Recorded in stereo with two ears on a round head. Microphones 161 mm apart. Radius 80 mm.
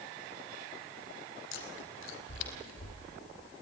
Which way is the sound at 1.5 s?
80° left.